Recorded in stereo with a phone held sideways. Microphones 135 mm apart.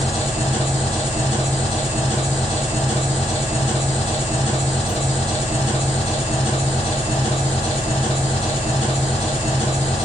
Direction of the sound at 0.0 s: 55° left (ahead or behind).